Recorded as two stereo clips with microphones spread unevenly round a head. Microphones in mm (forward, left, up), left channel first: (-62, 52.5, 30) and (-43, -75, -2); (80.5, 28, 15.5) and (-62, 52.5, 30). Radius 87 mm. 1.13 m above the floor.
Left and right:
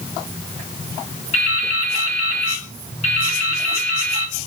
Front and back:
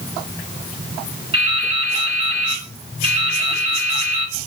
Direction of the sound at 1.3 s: 125° left.